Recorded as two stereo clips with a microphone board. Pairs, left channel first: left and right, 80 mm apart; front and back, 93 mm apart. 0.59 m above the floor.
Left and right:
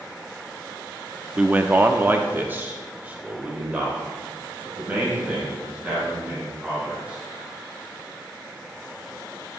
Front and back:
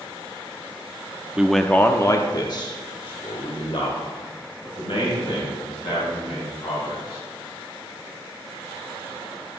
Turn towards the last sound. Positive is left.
turn(degrees=-15)